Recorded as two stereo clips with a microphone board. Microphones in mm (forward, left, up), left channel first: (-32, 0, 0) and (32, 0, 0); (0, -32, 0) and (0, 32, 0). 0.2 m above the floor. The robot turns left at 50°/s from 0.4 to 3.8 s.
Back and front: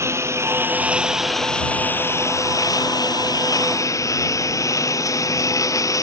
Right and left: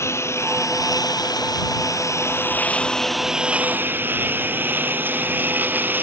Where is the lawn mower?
45° right; by 6.0 s 150° left.